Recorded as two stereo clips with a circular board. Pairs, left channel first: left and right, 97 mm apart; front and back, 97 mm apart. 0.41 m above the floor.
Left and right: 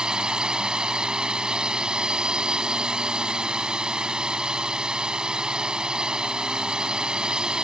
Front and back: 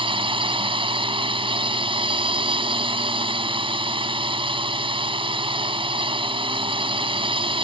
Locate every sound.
0.0 s a drone: 170° right